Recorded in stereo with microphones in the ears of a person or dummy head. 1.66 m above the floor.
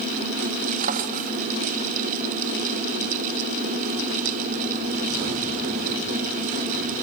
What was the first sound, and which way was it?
A drawer, 50° right (ahead or behind).